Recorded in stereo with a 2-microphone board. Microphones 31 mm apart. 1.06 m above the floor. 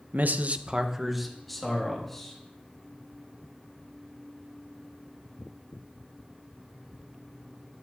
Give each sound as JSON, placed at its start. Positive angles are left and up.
{"t": 0.1, "sound": "a man speaking", "side_deg": -65, "distance_m": 0.5}